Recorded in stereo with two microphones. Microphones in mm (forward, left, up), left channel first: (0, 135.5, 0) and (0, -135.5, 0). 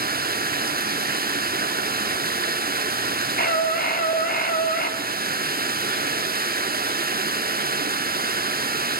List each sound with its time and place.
0.0 s running water: 35° right (ahead or behind), 1.1 m
3.4 s a scream: 35° left (ahead or behind), 3.5 m